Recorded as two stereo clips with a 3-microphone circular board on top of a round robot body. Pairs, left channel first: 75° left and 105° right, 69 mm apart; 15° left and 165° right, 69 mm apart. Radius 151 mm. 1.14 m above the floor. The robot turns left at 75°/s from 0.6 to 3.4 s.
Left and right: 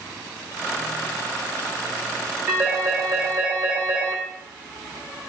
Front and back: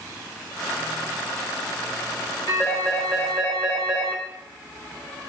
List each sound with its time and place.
2.5 s a phone ringing: 35° right, 2.0 m; by 4.2 s 105° right, 2.0 m